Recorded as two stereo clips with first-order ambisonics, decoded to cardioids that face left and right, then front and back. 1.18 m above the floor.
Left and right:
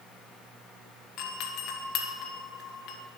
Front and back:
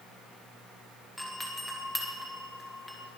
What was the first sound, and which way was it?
A doorbell, 85° left.